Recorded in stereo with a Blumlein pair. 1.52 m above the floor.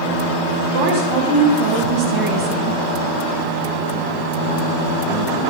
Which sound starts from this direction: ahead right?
A woman speaking, at 0.7 s.